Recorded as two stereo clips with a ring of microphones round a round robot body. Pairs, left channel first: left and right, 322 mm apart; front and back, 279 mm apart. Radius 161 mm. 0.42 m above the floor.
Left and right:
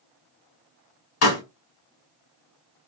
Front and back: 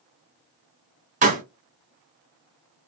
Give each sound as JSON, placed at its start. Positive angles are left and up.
{"t": 1.2, "sound": "a pop", "azimuth_deg": 120, "distance_m": 1.3}